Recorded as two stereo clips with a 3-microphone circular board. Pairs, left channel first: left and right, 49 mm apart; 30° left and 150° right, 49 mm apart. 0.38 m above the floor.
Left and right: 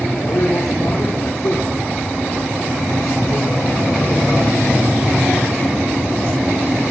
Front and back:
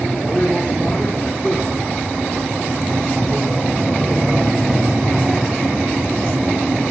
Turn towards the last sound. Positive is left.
turn(degrees=120)